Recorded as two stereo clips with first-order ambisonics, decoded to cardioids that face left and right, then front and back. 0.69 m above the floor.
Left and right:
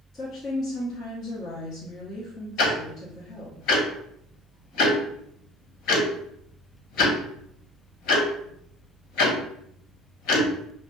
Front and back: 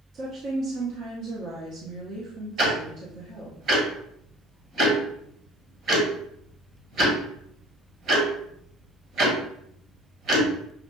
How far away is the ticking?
About 1.3 m.